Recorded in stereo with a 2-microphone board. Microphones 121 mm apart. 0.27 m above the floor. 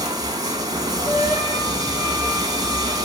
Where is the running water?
35° right (ahead or behind), 1.7 m.